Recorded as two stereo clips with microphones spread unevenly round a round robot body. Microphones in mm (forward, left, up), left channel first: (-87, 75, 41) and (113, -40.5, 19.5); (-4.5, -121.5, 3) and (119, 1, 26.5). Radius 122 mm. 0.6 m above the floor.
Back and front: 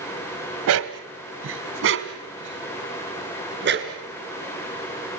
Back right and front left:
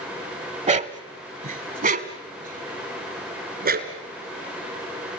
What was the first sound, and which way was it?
A dog barking, 5° right.